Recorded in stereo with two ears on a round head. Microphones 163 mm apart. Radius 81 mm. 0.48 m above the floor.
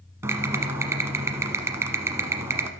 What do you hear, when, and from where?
0.2 s typing on a keyboard: 15° right (ahead or behind), 1.0 m